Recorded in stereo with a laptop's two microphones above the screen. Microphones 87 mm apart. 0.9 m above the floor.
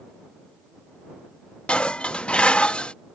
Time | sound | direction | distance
1.7 | dishes clattering | 10° left (ahead or behind) | ?